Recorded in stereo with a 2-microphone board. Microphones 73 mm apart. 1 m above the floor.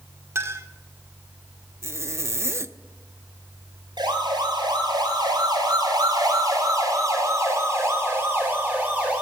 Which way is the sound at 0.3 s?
40° right (ahead or behind).